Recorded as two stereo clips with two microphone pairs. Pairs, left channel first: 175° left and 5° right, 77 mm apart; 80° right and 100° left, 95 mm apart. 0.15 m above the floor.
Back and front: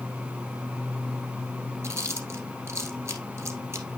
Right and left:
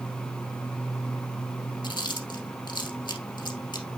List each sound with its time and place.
1.8 s chewing: 55° right, 1.6 m